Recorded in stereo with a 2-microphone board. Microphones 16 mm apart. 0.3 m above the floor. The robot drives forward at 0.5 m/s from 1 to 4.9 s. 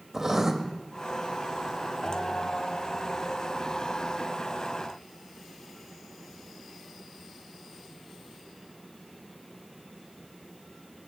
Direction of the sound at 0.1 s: 20° right (ahead or behind).